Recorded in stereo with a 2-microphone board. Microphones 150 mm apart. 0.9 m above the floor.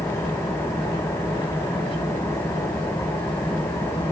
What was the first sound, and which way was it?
An engine running, 20° left (ahead or behind).